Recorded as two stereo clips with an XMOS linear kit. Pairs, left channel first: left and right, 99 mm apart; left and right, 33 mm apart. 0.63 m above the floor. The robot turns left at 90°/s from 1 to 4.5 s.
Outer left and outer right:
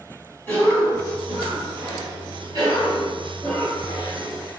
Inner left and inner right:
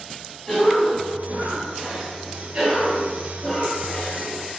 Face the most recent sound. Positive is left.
turn(degrees=70)